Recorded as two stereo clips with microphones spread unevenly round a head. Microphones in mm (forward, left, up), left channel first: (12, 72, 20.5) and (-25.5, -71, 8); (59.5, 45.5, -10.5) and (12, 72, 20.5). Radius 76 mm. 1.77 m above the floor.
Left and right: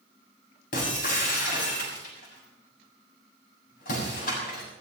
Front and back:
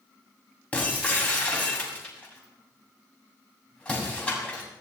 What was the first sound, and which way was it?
Breaking glass, 40° left.